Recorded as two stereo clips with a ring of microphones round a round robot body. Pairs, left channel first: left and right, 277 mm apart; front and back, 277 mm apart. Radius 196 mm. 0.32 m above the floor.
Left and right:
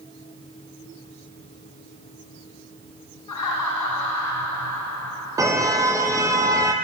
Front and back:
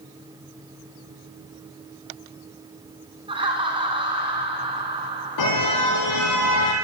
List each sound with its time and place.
3.3 s laughter: 110° left, 3.5 m
5.4 s a car horn: 10° right, 5.5 m